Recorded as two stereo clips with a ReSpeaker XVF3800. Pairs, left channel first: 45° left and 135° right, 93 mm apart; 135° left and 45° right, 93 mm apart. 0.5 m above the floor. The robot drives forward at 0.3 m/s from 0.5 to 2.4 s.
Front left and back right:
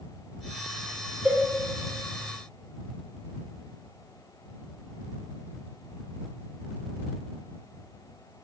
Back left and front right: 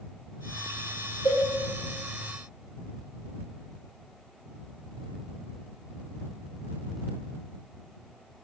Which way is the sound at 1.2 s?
150° left.